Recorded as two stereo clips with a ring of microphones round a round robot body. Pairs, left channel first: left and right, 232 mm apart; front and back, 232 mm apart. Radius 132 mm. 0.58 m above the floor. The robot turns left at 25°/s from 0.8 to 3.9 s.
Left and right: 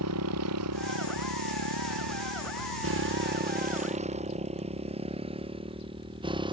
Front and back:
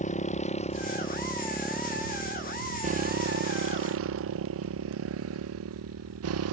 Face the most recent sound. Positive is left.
turn(degrees=-160)